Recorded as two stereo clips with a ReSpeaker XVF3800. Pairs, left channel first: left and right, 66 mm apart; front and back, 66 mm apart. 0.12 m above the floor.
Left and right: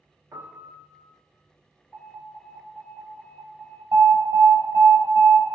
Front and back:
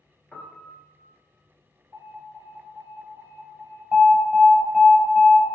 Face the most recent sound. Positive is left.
turn(degrees=-105)